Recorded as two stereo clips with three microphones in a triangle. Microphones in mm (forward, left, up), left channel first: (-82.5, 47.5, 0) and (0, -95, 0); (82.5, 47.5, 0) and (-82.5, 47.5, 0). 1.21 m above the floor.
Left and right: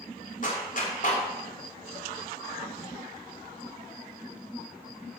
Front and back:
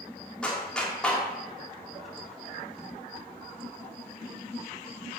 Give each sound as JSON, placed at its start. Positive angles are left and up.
{"t": 0.4, "sound": "a clap", "azimuth_deg": 85, "distance_m": 3.0}